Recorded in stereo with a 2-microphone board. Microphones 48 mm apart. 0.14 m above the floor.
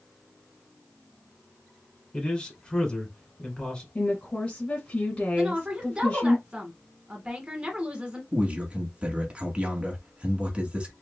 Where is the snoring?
I don't hear snoring.